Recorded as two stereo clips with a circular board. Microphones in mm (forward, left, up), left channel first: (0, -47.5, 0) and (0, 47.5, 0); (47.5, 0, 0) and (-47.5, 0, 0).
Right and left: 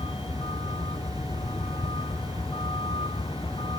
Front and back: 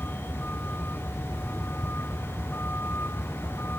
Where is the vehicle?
70° right; by 3.8 s 65° right.